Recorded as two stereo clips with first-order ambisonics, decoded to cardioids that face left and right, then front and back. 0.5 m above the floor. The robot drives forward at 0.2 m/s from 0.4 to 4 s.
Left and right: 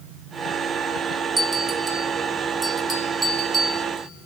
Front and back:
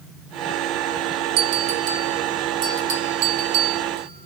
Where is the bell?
175° right, 0.6 m.